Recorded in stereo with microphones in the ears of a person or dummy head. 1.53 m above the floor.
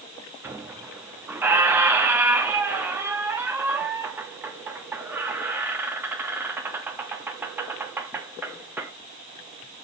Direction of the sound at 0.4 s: 10° right (ahead or behind).